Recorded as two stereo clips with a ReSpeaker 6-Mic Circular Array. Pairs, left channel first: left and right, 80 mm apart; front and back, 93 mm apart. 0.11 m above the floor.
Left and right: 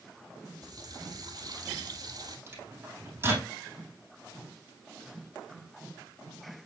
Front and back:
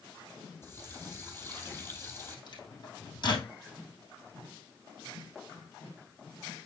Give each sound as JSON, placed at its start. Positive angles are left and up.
{"t": 0.6, "sound": "a running tap", "azimuth_deg": -60, "distance_m": 2.0}
{"t": 2.5, "sound": "a microwave", "azimuth_deg": -30, "distance_m": 3.0}